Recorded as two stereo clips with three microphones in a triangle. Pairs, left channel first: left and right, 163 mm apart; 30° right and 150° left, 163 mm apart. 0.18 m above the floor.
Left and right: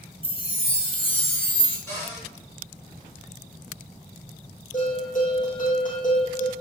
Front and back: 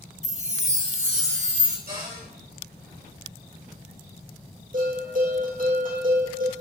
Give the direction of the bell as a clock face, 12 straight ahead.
8 o'clock.